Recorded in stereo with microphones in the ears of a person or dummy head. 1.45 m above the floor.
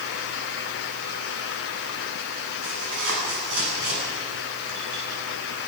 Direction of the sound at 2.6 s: 65° right (ahead or behind).